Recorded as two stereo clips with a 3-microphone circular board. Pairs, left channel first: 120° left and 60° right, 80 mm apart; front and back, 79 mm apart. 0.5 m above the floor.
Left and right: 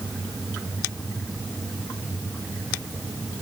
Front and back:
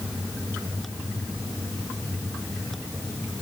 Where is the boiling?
I don't hear boiling.